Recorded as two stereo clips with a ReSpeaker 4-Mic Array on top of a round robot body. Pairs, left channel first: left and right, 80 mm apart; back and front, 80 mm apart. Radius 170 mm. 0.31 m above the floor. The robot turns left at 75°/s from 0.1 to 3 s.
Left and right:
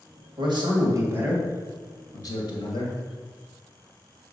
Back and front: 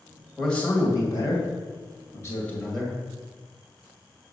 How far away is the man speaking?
About 2.5 m.